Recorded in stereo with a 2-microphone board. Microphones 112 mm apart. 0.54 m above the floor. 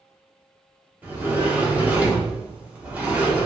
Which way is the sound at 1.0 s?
15° right (ahead or behind).